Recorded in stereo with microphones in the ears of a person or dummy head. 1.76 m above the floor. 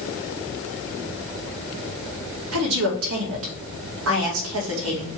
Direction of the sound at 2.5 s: 75° right (ahead or behind).